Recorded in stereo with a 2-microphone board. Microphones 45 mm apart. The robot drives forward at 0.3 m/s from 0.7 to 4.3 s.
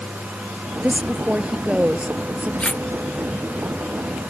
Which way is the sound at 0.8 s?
25° right (ahead or behind).